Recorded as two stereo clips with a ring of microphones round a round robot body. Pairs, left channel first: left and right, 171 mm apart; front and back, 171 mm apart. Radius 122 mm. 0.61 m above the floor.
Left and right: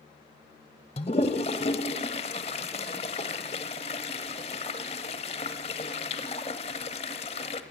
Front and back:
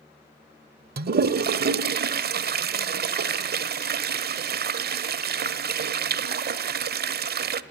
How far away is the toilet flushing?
About 1.0 m.